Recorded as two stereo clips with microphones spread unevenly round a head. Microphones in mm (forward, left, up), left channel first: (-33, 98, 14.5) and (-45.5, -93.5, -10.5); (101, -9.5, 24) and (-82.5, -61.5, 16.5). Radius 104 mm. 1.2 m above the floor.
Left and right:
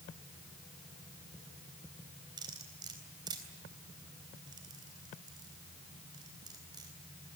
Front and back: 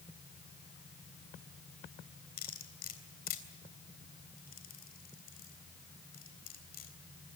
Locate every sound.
2.4 s cutlery clinking: 20° right, 3.5 m